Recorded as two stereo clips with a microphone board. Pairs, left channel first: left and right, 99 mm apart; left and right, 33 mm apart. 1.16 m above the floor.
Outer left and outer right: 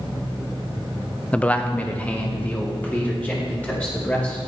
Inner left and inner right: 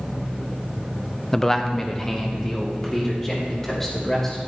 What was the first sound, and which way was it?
A man speaking, 10° left (ahead or behind).